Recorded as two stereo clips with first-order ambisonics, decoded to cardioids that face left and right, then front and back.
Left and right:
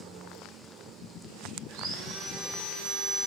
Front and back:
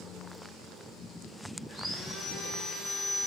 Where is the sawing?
100° right, 1.6 m.